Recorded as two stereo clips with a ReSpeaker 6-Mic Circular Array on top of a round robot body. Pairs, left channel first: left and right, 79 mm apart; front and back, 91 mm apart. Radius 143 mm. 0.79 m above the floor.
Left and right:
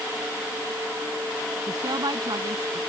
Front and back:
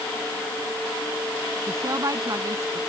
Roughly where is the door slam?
No door slam in this recording.